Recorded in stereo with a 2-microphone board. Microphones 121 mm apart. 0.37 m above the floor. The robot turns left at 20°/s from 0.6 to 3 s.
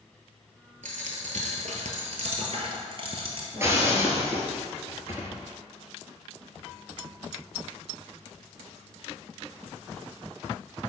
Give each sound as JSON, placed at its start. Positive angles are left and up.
{"t": 0.8, "sound": "a dropped coin", "azimuth_deg": -85, "distance_m": 1.2}
{"t": 3.5, "sound": "breaking glass", "side_deg": -25, "distance_m": 1.1}